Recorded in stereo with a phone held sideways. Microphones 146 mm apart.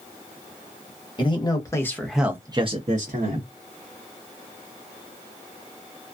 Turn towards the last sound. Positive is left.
turn(degrees=-75)  # may be behind; listen again after turning